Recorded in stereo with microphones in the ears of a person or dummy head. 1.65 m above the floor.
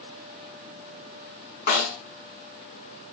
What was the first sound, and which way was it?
A snare drum, 45° left (ahead or behind).